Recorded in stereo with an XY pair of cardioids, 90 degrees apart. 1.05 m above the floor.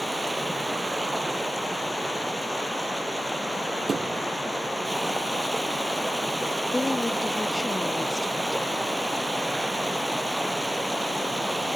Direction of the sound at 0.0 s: 10° right.